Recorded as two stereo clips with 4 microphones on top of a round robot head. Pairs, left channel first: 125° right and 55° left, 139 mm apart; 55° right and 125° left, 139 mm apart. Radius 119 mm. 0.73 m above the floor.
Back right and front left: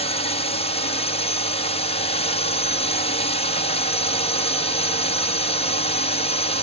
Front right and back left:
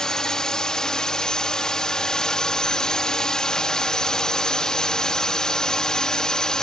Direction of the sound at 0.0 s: 140° right.